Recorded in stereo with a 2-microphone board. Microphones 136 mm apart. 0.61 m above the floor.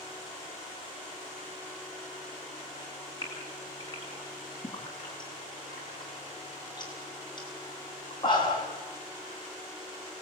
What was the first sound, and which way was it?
A gasp, 30° left (ahead or behind).